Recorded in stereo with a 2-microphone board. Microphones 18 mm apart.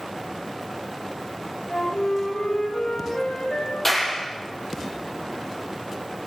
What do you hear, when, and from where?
1.7 s a flute: 85° left, 8.5 m
3.9 s a clap: 15° left (ahead or behind), 6.5 m